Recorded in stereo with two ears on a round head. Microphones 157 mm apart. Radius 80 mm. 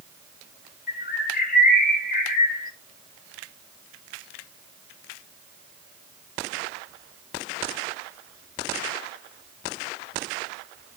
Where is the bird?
55° left (ahead or behind), 2.5 m.